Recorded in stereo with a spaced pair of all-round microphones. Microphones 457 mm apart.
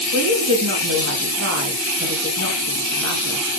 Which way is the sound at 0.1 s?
30° right (ahead or behind).